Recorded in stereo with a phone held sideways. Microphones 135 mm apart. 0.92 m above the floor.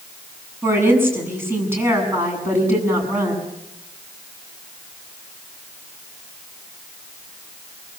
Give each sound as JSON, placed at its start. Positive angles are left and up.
{"t": 0.6, "sound": "a woman speaking", "side_deg": -15, "distance_m": 8.0}